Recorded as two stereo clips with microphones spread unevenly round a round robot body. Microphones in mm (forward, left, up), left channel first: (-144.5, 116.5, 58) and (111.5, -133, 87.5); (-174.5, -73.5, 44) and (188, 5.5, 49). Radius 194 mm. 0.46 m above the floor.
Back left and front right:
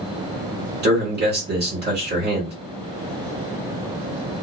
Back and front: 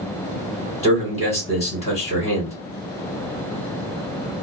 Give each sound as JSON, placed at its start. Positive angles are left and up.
{"t": 0.8, "sound": "a man speaking", "azimuth_deg": -100, "distance_m": 1.7}